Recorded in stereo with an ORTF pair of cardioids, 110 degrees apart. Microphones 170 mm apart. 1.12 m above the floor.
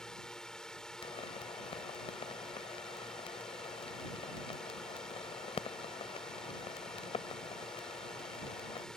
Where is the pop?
35° left.